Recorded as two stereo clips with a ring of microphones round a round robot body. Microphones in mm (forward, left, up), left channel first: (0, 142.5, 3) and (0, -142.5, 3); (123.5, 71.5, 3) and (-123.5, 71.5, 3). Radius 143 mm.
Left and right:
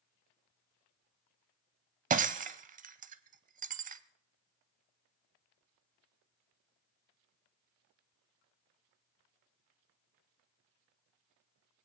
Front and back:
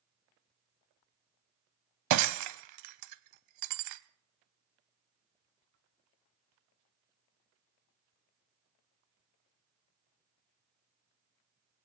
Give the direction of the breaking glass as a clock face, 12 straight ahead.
5 o'clock.